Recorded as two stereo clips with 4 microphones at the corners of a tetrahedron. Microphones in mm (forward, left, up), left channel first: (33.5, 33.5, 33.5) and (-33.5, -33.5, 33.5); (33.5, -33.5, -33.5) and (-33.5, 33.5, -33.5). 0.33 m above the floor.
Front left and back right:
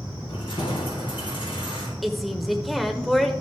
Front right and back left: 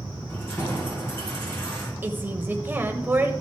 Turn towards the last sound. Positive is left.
turn(degrees=135)